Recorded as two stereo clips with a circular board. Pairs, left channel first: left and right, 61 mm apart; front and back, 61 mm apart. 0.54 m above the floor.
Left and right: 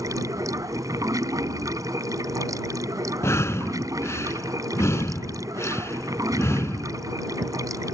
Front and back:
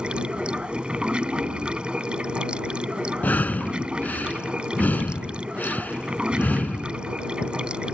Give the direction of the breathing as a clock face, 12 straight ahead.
10 o'clock.